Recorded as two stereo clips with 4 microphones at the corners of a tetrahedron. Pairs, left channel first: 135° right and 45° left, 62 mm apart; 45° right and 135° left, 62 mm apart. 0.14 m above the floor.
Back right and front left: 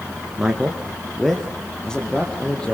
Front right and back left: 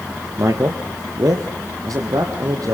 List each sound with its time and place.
0.4 s a man speaking: 125° left, 1.8 m; by 2.7 s 150° left, 4.5 m